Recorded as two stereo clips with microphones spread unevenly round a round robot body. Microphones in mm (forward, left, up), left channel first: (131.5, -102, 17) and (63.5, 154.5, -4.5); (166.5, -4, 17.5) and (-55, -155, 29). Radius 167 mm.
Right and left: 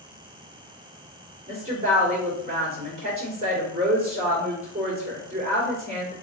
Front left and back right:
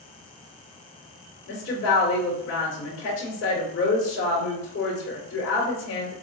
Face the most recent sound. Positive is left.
turn(degrees=45)